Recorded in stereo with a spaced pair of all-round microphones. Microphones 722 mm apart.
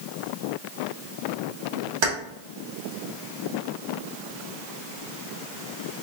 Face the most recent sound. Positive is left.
turn(degrees=-40)  # may be behind; listen again after turning